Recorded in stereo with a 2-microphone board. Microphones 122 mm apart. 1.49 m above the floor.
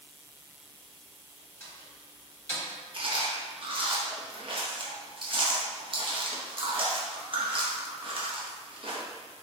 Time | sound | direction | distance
1.6 | a door slam | 25° left (ahead or behind) | 1.6 m
2.9 | chewing | 45° right (ahead or behind) | 0.8 m